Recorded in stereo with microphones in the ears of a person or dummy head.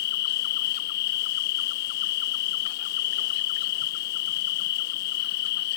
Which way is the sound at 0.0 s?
50° left (ahead or behind).